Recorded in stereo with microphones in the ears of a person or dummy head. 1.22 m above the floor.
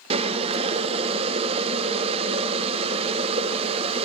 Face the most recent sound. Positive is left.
turn(degrees=-30)  # may be behind; listen again after turning